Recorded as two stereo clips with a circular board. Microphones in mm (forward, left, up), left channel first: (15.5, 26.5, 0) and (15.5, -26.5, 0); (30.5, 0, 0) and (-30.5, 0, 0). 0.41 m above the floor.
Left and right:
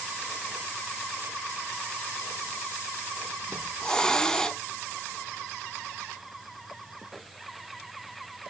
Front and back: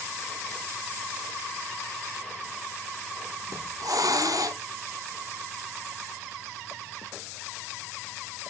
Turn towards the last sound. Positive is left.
turn(degrees=165)